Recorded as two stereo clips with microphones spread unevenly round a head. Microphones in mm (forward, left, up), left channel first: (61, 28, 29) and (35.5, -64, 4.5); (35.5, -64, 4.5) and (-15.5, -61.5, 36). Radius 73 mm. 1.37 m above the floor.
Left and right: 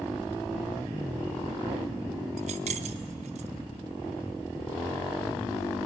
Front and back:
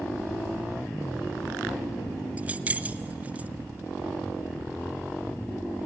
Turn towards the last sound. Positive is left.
turn(degrees=-150)